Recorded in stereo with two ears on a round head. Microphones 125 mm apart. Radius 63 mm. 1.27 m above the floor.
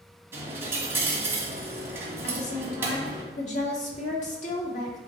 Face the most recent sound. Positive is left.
turn(degrees=50)  # may be behind; listen again after turning